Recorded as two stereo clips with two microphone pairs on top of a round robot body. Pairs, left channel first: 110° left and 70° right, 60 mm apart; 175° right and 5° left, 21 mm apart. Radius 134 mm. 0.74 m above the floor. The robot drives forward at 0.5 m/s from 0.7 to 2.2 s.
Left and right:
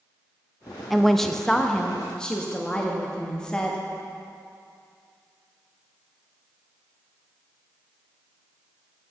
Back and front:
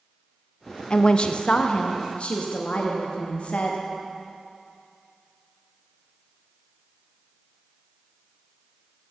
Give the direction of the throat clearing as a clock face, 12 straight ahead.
No throat clearing in this recording.